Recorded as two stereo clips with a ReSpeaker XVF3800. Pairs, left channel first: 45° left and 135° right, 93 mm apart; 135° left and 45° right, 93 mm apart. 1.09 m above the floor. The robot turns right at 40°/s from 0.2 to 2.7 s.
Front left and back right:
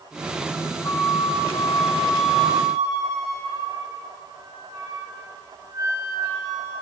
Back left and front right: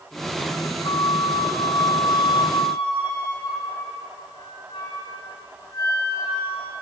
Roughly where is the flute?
Left.